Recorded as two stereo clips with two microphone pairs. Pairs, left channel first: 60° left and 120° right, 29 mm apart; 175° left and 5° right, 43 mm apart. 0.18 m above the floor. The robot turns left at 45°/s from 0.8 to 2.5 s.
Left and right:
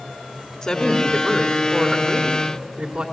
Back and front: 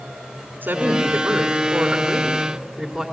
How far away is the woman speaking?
About 2 m.